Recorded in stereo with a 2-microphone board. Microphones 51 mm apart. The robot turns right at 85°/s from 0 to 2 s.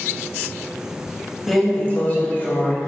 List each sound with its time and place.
1.5 s a drawer: straight ahead, 0.6 m; by 2.8 s 45° left, 0.6 m